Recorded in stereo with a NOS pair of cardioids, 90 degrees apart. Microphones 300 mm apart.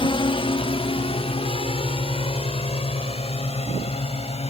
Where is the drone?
15° left; by 4.5 s 20° left.